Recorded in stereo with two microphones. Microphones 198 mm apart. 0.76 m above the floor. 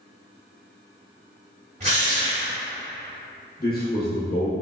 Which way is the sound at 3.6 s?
50° left (ahead or behind).